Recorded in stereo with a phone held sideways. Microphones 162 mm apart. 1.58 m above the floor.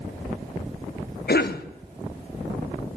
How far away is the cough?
About 0.8 m.